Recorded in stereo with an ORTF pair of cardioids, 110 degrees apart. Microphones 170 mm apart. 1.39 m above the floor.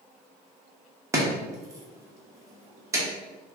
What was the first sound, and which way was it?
Chopping, 20° right.